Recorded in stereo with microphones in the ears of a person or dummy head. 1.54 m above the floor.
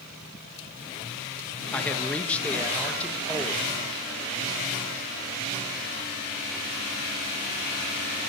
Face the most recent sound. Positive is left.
turn(degrees=5)  # may be behind; listen again after turning